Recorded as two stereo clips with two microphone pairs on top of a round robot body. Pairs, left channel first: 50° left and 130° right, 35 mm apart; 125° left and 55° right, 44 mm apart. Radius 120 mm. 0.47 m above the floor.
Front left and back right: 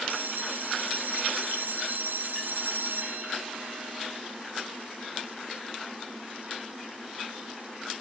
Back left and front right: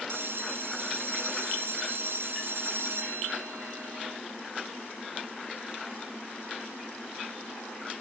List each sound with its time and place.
0.1 s a bell: 95° right, 0.6 m